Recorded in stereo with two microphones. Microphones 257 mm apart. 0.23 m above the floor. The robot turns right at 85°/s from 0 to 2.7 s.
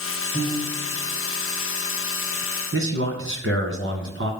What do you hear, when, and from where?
0.3 s a piano: 110° left, 4.5 m; by 1.0 s 165° left, 4.5 m
2.7 s a man speaking: 55° right (ahead or behind), 2 m